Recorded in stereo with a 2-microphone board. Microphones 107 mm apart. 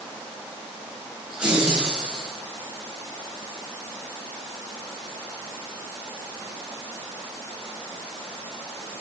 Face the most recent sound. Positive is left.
turn(degrees=-10)  # may be behind; listen again after turning